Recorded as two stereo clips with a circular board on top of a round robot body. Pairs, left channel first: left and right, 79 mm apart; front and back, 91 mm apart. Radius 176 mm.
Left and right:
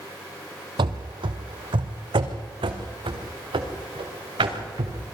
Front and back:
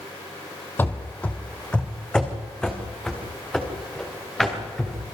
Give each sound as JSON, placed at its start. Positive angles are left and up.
{"t": 0.8, "sound": "running footsteps", "azimuth_deg": -70, "distance_m": 1.2}